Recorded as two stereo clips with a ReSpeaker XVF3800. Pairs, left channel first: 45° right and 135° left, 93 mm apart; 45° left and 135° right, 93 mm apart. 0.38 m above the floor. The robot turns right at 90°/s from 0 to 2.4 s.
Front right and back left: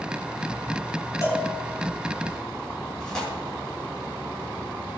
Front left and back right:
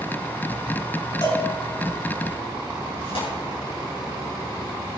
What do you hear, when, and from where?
1.2 s a cowbell: 5° left, 3.5 m; by 1.5 s 30° left, 3.5 m
3.0 s tearing paper: 35° left, 6 m